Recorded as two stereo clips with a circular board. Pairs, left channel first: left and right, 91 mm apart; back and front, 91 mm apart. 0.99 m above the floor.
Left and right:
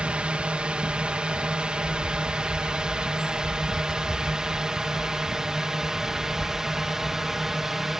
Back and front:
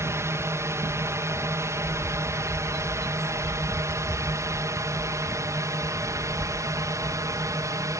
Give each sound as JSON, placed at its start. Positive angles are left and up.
{"t": 0.0, "sound": "a drone", "azimuth_deg": -20}
{"t": 1.8, "sound": "a bird", "azimuth_deg": 110}